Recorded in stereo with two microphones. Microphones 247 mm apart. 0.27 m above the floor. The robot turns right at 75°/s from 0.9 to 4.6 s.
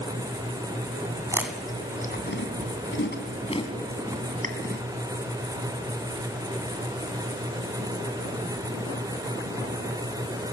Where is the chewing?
15° right (ahead or behind), 2.5 m; by 4.8 s 40° right (ahead or behind), 2.5 m.